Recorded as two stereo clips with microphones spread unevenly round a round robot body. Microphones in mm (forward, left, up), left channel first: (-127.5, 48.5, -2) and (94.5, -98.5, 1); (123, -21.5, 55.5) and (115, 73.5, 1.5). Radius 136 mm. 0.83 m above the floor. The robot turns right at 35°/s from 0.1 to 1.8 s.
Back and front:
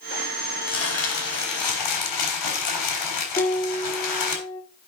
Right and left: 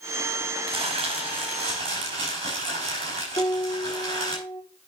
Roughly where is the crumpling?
Left.